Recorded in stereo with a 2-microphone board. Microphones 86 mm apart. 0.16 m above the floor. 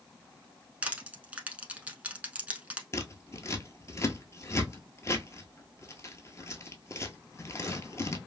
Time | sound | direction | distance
0.8 | crushing | 15° right (ahead or behind) | 0.8 m
2.9 | scissors | 35° left (ahead or behind) | 0.7 m